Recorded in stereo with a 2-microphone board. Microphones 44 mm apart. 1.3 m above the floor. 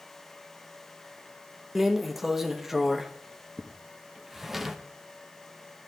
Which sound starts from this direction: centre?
A drawer, at 1.8 s.